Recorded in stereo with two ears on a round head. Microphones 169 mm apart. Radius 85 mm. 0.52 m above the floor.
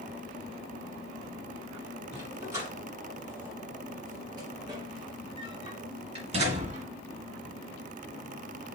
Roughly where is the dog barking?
Centre.